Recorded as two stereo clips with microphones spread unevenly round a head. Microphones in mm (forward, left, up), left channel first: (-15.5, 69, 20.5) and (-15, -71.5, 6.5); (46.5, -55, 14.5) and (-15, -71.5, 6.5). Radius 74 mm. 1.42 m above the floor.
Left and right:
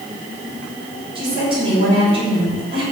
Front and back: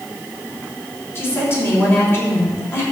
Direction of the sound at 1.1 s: 30° right.